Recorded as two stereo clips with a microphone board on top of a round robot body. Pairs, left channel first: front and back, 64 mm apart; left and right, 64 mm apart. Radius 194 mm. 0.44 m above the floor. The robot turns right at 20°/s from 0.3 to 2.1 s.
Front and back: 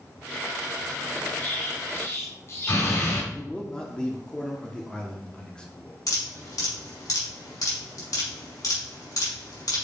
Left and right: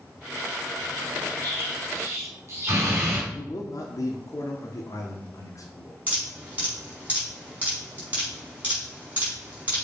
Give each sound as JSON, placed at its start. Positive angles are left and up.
{"t": 1.4, "sound": "an explosion", "azimuth_deg": -55, "distance_m": 3.5}
{"t": 3.3, "sound": "a man speaking", "azimuth_deg": 75, "distance_m": 1.2}
{"t": 6.1, "sound": "dripping", "azimuth_deg": -25, "distance_m": 4.0}